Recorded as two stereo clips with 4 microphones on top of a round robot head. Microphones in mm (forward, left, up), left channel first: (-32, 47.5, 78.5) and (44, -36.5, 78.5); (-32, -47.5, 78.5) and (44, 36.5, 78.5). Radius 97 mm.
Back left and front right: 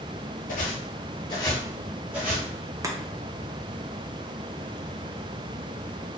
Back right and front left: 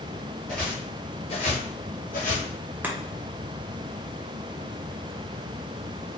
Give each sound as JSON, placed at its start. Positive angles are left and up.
{"t": 0.5, "sound": "footsteps", "azimuth_deg": 145, "distance_m": 0.7}
{"t": 2.8, "sound": "chopping", "azimuth_deg": -15, "distance_m": 0.8}